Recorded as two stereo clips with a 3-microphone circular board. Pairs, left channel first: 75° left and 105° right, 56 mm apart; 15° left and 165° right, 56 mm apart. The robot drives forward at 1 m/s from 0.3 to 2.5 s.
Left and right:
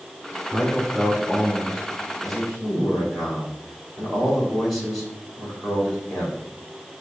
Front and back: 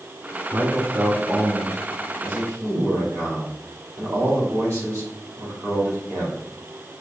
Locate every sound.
0.5 s a man speaking: 155° left, 3.5 m; by 6.4 s 165° left, 5.5 m